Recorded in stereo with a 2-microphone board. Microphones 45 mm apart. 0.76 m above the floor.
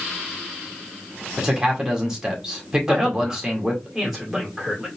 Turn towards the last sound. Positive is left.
turn(degrees=0)  # may be behind; listen again after turning